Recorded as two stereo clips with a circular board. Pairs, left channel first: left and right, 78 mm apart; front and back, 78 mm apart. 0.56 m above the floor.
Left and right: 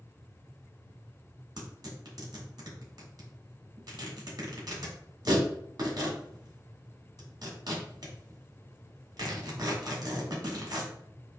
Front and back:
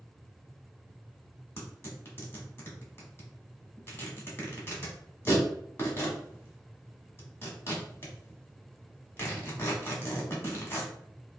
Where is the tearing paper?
60° right, 1.6 m.